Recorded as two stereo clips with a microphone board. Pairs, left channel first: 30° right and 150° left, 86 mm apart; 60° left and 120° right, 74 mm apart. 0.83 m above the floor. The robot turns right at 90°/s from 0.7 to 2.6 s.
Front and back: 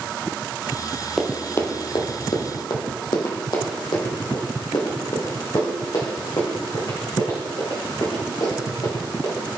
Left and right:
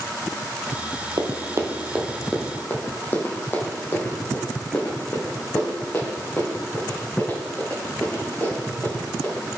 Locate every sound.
1.2 s running footsteps: 120° right, 1.5 m; by 9.6 s 5° right, 6 m